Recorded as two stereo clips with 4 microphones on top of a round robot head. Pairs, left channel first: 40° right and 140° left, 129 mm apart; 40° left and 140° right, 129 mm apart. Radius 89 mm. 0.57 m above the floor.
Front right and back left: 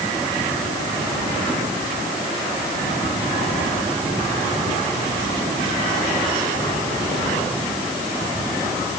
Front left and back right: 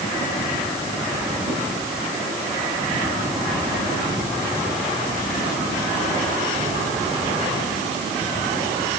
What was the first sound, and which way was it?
Only background noise.